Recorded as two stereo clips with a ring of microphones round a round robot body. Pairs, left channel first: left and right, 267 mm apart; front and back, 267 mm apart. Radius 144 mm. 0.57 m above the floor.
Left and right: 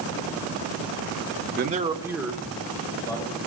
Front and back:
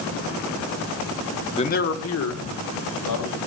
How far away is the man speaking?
About 1.0 m.